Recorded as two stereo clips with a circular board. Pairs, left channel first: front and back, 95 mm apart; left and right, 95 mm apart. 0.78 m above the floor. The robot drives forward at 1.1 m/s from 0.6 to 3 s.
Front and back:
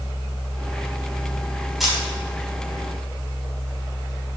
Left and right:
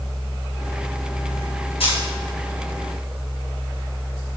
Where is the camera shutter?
90° left, 5 m; by 2.0 s 95° left, 5 m.